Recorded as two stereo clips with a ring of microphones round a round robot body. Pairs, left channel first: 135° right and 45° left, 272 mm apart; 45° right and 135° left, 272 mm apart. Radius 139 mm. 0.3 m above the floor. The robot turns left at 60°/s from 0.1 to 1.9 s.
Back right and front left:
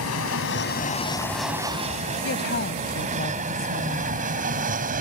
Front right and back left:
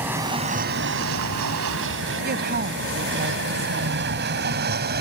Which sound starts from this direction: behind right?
An aircraft, at 0.0 s.